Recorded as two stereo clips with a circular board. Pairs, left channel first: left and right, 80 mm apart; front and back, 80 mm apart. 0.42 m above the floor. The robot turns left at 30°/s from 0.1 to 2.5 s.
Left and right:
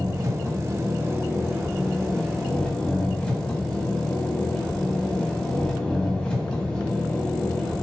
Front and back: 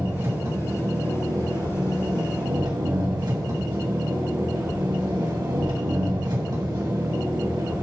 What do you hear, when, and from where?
0.0 s an engine running: 120° right, 2.5 m; by 7.8 s 165° left, 2.5 m